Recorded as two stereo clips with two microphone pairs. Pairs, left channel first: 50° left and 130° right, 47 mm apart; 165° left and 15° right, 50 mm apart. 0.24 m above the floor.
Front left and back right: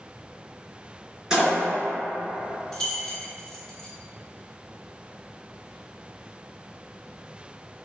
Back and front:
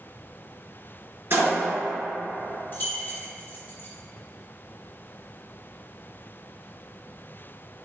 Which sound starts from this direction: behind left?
Keys jangling, at 2.7 s.